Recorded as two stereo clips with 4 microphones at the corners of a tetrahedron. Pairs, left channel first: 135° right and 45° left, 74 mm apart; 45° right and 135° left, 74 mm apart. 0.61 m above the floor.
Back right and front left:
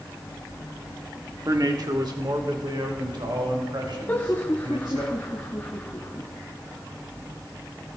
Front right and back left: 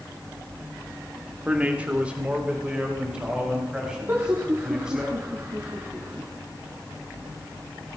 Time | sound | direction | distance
1.4 | a man speaking | 70° left | 1.3 m
4.1 | laughter | 175° left | 1.4 m